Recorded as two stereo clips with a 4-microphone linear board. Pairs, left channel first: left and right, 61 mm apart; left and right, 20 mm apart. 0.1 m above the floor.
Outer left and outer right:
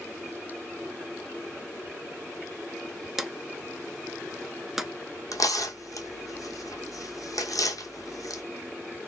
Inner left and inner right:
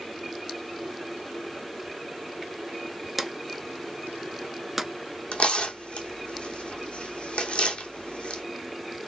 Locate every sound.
3.2 s a drawer: 5° right (ahead or behind), 0.6 m
5.3 s tearing paper: 75° left (ahead or behind), 1.2 m